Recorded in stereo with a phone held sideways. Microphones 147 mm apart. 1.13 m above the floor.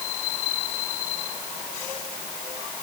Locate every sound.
Only background noise.